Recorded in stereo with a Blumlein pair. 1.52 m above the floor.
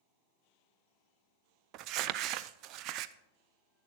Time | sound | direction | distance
1.7 | crumpling | 40° right | 0.5 m